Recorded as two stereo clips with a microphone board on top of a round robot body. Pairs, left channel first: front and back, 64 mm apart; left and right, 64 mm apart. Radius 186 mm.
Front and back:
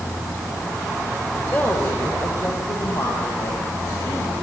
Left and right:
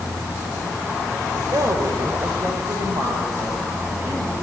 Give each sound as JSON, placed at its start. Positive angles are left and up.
{"t": 1.3, "sound": "a woman speaking", "azimuth_deg": -70, "distance_m": 3.5}